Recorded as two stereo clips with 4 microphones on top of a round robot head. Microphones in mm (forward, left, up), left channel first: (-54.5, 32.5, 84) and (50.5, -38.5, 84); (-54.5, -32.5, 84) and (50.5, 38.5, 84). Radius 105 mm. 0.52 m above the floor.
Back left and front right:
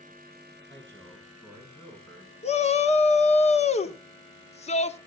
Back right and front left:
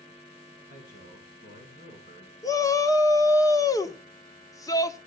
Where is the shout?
155° left, 1.3 m.